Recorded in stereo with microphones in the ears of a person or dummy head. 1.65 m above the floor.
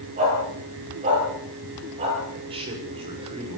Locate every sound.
0.2 s a dog barking: 40° right (ahead or behind), 9.5 m; by 2.2 s 35° right (ahead or behind), 11.5 m
2.5 s a man speaking: 30° right (ahead or behind), 7 m